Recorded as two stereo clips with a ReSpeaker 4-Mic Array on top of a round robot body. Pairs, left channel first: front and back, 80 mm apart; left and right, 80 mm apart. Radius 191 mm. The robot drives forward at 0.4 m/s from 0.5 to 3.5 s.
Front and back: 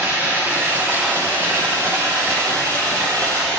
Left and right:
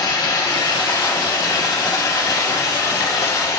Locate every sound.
0.0 s running water: 115° left, 2 m; by 3.6 s 140° left, 3 m